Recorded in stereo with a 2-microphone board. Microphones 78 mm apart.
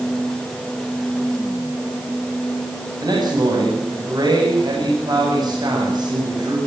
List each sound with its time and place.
3.0 s a man speaking: 60° right (ahead or behind), 8.5 m